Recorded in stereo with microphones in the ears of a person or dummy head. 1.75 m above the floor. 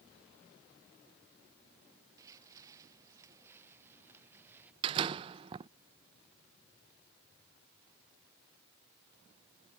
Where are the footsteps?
20° right (ahead or behind); by 4.7 s 10° right (ahead or behind).